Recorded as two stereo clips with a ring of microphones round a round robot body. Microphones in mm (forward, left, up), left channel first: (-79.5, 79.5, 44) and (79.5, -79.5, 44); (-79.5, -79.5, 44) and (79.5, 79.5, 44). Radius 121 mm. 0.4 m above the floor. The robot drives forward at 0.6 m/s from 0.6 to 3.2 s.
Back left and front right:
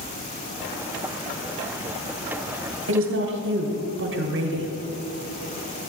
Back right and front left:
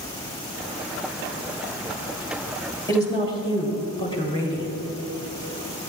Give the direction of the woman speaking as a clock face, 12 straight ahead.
2 o'clock.